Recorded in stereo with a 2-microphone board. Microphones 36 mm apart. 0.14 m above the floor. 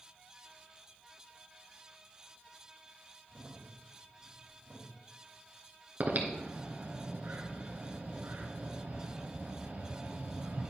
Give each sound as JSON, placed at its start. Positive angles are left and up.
{"t": 3.3, "sound": "a crack", "side_deg": -35, "distance_m": 5.0}
{"t": 6.0, "sound": "breathing", "side_deg": -50, "distance_m": 1.7}